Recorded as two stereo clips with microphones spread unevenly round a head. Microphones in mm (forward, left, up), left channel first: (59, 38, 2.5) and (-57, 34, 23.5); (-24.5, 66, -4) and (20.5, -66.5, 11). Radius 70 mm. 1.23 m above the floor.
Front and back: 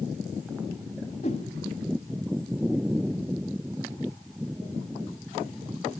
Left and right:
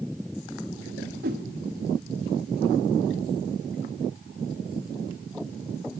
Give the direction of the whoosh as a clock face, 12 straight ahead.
2 o'clock.